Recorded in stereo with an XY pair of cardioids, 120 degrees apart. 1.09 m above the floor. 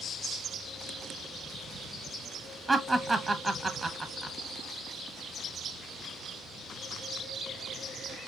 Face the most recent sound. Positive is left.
turn(degrees=-10)